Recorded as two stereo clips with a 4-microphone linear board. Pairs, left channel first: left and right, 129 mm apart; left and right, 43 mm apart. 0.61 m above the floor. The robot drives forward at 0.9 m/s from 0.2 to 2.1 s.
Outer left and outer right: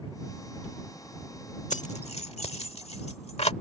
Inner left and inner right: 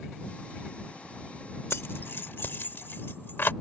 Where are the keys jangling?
65° left (ahead or behind); by 3.5 s 50° left (ahead or behind).